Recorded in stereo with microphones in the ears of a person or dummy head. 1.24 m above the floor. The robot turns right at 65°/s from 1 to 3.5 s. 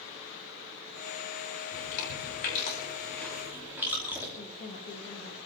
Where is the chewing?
75° left (ahead or behind), 5 m; by 4.3 s 10° right (ahead or behind), 5 m.